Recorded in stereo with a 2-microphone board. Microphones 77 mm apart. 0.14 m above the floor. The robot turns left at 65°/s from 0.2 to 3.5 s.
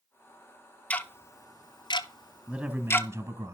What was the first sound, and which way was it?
Ticking, 15° left (ahead or behind).